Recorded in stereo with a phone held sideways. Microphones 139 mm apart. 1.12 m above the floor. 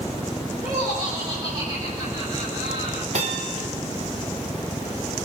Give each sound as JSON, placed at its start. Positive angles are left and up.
{"t": 0.6, "sound": "laughter", "side_deg": -30, "distance_m": 5.0}
{"t": 3.1, "sound": "a bell", "side_deg": -65, "distance_m": 3.0}